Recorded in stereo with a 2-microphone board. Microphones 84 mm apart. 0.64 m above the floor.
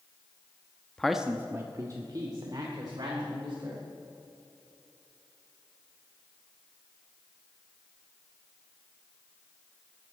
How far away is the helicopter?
No helicopter in this recording.